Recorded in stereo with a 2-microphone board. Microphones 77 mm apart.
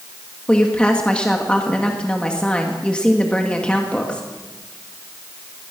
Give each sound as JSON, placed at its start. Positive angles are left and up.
{"t": 0.5, "sound": "a woman speaking", "side_deg": 15, "distance_m": 2.0}